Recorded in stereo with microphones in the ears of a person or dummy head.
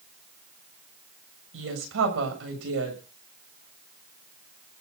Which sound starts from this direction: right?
A woman speaking, at 1.5 s.